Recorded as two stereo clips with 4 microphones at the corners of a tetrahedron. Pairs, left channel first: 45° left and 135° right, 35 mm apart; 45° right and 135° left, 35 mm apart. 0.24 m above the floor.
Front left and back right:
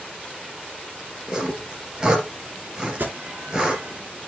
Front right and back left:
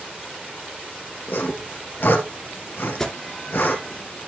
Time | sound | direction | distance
1.3 | sawing | 65° right | 2.5 m
3.0 | an alarm | 120° right | 3 m